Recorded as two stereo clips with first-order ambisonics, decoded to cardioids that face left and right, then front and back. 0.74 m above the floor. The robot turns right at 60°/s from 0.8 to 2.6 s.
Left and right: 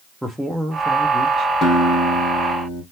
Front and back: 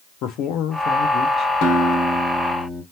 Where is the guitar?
25° left, 1.5 m; by 2.8 s 85° left, 1.5 m.